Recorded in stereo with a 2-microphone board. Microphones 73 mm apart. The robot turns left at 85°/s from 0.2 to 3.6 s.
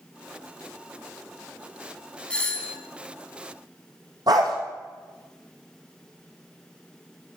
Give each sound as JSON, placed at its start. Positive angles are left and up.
{"t": 2.3, "sound": "a doorbell", "side_deg": 15, "distance_m": 1.4}
{"t": 4.3, "sound": "a dog barking", "side_deg": -70, "distance_m": 3.0}